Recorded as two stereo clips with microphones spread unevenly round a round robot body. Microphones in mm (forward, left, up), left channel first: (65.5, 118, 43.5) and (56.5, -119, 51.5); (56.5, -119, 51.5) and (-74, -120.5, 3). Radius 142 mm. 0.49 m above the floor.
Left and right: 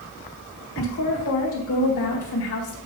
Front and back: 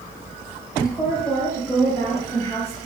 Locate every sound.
0.8 s a woman speaking: 85° left, 2.0 m